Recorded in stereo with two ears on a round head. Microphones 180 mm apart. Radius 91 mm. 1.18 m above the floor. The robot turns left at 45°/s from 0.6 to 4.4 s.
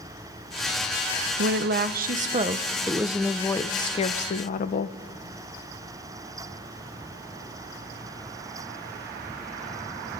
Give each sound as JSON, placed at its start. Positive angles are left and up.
{"t": 1.4, "sound": "a woman speaking", "azimuth_deg": -95, "distance_m": 0.7}